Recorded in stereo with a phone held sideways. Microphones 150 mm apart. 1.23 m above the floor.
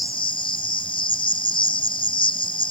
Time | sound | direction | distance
0.0 | an insect | 35° left (ahead or behind) | ?